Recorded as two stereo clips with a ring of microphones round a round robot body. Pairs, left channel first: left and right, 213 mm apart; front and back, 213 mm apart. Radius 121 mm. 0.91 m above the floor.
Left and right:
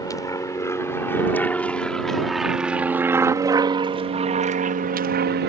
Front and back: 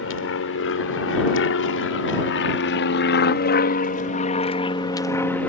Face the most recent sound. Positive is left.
turn(degrees=-85)